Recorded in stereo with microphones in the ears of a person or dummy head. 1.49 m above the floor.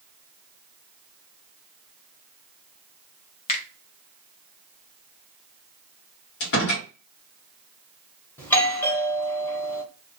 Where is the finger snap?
40° left (ahead or behind), 0.8 m.